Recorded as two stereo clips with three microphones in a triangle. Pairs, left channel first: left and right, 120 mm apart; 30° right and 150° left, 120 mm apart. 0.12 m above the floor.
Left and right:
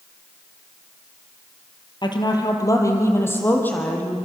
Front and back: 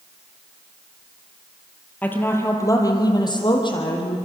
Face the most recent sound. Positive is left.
turn(degrees=10)